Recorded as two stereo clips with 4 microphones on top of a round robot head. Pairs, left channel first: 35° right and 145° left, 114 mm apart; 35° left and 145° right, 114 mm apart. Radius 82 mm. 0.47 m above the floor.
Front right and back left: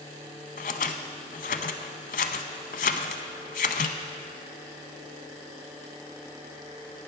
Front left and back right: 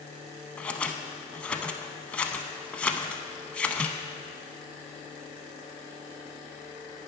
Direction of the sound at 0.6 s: 45° right.